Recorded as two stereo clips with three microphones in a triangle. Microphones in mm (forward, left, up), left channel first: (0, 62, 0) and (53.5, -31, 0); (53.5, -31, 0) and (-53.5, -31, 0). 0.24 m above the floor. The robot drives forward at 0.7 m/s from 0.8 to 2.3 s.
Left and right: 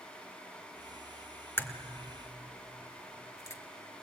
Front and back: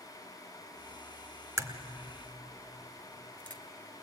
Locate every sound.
1.6 s a crack: 165° left, 1.2 m; by 3.6 s 170° left, 1.5 m